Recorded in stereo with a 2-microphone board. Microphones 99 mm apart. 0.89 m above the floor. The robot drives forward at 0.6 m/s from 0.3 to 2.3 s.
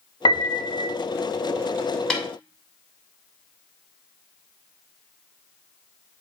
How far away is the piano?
About 1.2 m.